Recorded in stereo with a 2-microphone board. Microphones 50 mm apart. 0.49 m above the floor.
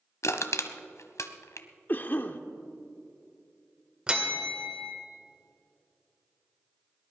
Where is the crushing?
75° left (ahead or behind), 1.0 m.